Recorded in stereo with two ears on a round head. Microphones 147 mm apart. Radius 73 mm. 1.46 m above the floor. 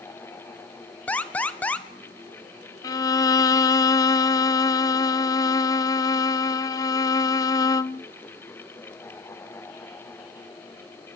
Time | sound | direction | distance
1.1 | an alarm | 10° left (ahead or behind) | 1.3 m
2.8 | a violin | 25° left (ahead or behind) | 0.5 m